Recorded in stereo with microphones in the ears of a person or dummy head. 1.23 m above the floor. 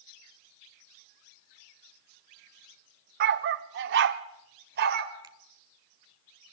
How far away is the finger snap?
About 1.3 m.